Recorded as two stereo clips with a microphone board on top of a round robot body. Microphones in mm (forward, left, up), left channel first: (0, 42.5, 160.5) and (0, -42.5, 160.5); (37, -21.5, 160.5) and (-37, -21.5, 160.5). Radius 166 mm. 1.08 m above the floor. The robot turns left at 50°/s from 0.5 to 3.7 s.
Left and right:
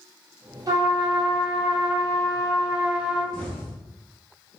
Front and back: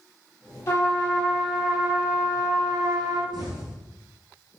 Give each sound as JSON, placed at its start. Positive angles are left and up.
{"t": 0.7, "sound": "a trumpet", "azimuth_deg": -50, "distance_m": 2.5}
{"t": 3.3, "sound": "an explosion", "azimuth_deg": 170, "distance_m": 1.9}